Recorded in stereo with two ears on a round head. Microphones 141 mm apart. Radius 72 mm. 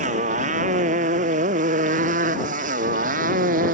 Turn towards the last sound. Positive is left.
turn(degrees=-60)  # may be behind; listen again after turning